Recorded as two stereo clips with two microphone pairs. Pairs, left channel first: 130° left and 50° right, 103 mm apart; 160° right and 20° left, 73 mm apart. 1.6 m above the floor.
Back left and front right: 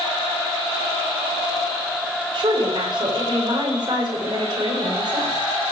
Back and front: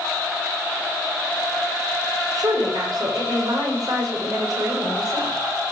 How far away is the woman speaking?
About 6.5 m.